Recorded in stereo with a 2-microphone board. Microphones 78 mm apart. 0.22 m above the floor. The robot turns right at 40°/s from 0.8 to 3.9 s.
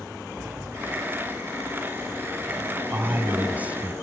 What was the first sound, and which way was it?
A sliding door, 20° right.